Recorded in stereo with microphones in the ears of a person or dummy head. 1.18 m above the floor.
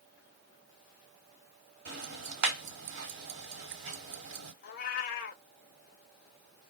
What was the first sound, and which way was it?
Ticking, 60° right (ahead or behind).